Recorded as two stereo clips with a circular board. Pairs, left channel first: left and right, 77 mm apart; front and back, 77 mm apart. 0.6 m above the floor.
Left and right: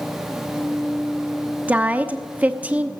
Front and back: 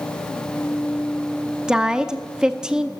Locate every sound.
1.7 s a woman speaking: 115° right, 0.9 m